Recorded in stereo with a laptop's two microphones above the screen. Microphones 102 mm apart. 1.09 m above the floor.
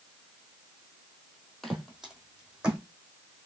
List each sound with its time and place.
1.6 s footsteps: centre (ahead or behind), 1.6 m; by 2.8 s 10° right (ahead or behind), 2.5 m